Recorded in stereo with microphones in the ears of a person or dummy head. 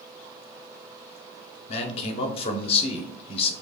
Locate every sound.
1.7 s a man speaking: 35° left (ahead or behind), 0.7 m